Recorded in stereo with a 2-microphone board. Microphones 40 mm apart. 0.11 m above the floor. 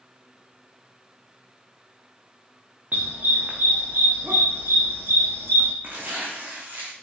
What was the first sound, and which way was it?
A dog barking, 45° right (ahead or behind).